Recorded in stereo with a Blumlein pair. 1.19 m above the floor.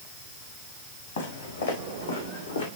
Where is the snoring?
No snoring in this recording.